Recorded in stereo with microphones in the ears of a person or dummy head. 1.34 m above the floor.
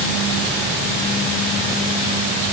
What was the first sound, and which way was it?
Only background noise.